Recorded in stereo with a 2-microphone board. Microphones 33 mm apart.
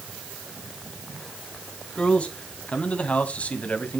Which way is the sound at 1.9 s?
35° left (ahead or behind).